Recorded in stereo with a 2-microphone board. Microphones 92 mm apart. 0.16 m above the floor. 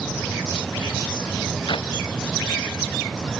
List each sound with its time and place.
1.7 s a clap: 55° left (ahead or behind)